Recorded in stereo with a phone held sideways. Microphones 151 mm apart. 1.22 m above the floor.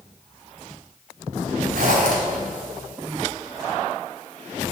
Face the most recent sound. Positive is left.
turn(degrees=-80)